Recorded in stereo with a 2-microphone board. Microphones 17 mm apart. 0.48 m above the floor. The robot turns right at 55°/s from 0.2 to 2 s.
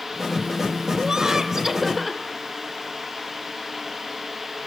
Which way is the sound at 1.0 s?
55° right.